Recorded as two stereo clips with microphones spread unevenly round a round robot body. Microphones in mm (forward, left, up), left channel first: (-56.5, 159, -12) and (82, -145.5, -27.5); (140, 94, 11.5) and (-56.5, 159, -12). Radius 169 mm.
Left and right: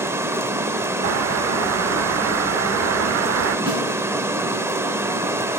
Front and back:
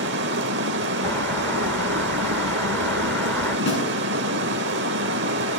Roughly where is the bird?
Right.